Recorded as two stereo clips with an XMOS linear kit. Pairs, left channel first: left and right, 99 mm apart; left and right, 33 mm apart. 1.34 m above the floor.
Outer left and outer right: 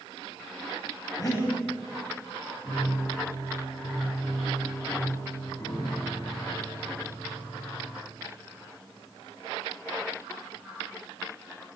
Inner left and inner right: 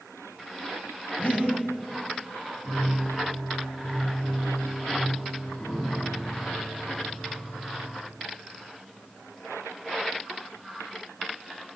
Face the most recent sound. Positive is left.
turn(degrees=35)  # may be behind; listen again after turning